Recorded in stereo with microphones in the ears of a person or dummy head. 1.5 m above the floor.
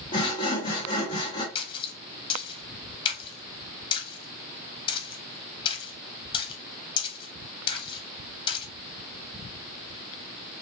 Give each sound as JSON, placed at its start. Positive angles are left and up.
{"t": 0.1, "sound": "sawing", "side_deg": 20, "distance_m": 0.8}
{"t": 1.6, "sound": "a splash", "side_deg": 35, "distance_m": 1.0}